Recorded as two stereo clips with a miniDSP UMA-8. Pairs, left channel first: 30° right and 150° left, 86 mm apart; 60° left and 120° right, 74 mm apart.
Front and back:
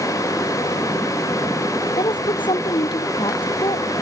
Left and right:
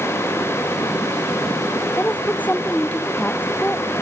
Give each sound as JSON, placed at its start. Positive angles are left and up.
{"t": 2.0, "sound": "a woman speaking", "azimuth_deg": -10}